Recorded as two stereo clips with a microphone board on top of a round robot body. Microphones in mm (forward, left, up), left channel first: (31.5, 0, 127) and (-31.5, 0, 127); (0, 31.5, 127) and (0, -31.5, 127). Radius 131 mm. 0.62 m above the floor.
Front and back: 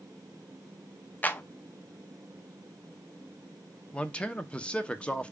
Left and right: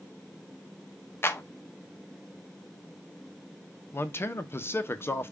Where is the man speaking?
65° left, 0.7 m.